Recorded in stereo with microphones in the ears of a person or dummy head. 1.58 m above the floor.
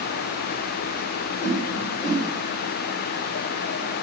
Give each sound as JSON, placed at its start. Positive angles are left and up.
{"t": 1.4, "sound": "a whoosh", "side_deg": 35, "distance_m": 2.5}